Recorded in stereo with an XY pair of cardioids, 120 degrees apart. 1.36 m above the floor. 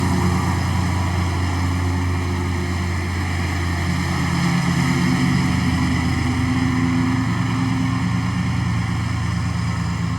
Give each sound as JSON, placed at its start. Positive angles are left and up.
{"t": 0.0, "sound": "a lawn mower", "azimuth_deg": -5}